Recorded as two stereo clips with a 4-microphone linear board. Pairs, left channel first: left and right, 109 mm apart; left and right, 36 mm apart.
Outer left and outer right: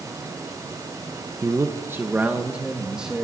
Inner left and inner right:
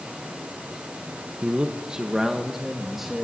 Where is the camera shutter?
No camera shutter in this recording.